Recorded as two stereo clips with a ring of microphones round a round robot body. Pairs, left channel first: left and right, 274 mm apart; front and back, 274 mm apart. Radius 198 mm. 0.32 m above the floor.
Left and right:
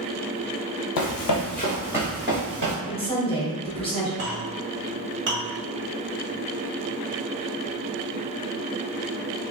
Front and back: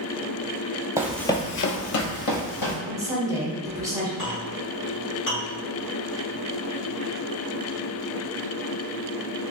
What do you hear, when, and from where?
1.0 s running footsteps: 100° left, 0.7 m; by 2.8 s 20° right, 1.1 m
2.9 s a woman speaking: 120° left, 1.2 m
4.2 s a clink: 50° right, 1.5 m